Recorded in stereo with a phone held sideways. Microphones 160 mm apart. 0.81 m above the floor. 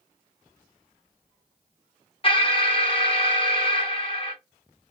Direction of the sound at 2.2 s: 35° left (ahead or behind).